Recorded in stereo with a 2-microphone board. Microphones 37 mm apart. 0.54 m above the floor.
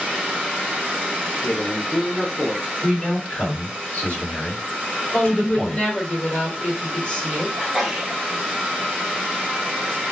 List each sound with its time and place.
1.4 s a man speaking: 35° left (ahead or behind), 0.8 m; by 2.7 s 20° right (ahead or behind), 0.8 m
2.8 s a man speaking: 45° left (ahead or behind), 1.7 m
5.1 s a woman speaking: 40° left (ahead or behind), 1.5 m
7.6 s a sneeze: 15° right (ahead or behind), 1.0 m